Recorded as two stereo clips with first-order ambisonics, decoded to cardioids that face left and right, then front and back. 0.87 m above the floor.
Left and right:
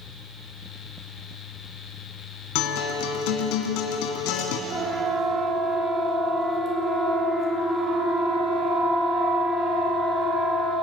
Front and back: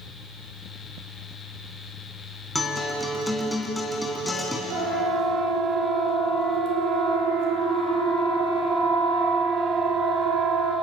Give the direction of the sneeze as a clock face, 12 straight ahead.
I don't hear a sneeze.